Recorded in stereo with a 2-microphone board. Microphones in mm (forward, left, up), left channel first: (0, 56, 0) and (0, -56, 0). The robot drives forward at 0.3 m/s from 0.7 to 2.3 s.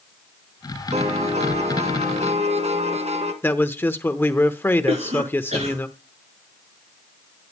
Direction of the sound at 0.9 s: 80° right.